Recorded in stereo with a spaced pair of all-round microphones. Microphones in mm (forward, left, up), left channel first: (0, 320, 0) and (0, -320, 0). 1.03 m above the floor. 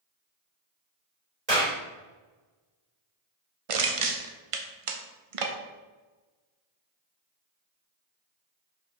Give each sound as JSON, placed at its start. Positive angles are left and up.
{"t": 1.5, "sound": "a clap", "side_deg": -85, "distance_m": 3.0}
{"t": 3.7, "sound": "crushing", "side_deg": -55, "distance_m": 0.7}